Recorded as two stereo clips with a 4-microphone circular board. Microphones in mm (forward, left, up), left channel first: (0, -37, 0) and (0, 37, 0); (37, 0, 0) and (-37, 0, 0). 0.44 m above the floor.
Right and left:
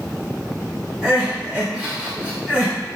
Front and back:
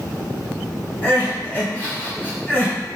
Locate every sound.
1.0 s crying: 35° left, 1.1 m